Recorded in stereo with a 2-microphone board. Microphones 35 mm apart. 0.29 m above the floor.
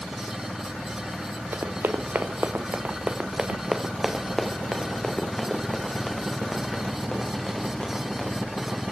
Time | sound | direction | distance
1.5 | running footsteps | 75° right (ahead or behind) | 1.4 m